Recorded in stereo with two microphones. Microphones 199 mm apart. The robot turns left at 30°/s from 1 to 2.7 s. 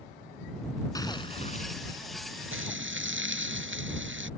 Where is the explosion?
15° left (ahead or behind); by 1.8 s 40° left (ahead or behind).